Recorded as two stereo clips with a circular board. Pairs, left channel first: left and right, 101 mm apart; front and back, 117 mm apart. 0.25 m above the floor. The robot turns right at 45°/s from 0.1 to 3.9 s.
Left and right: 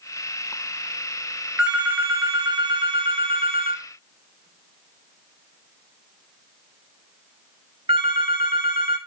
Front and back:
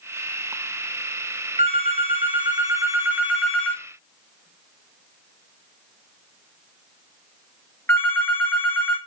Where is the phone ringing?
175° right, 2 m; by 9.0 s 70° right, 2 m.